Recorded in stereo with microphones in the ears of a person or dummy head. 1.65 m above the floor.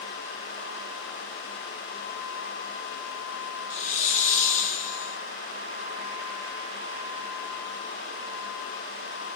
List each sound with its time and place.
3.7 s a hiss: 45° left (ahead or behind), 0.7 m